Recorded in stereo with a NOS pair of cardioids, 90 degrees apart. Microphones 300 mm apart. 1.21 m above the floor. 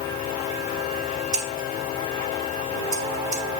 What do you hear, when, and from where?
1.3 s scissors: 65° right, 1.4 m